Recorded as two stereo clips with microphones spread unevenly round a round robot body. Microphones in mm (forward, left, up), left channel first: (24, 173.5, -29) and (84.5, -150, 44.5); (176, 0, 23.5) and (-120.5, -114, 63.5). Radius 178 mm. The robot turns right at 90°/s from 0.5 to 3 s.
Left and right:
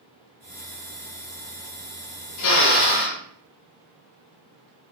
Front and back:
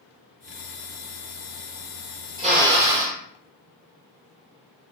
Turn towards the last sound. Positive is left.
turn(degrees=175)